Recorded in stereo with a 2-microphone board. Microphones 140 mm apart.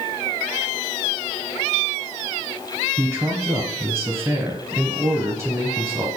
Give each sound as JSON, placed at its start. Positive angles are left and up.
{"t": 3.0, "sound": "a man speaking", "side_deg": -20, "distance_m": 1.5}